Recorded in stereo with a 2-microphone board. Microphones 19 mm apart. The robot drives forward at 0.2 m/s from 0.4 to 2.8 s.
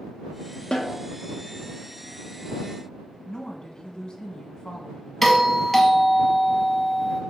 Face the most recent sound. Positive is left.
turn(degrees=10)  # may be behind; listen again after turning